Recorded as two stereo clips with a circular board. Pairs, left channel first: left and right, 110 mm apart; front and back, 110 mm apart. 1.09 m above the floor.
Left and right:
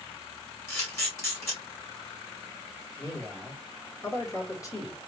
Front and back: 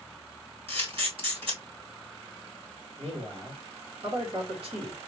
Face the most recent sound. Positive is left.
turn(degrees=150)